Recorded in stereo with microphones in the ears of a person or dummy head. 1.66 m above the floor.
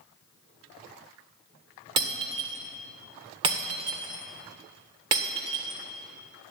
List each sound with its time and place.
2.0 s breaking glass: 25° right (ahead or behind), 1.5 m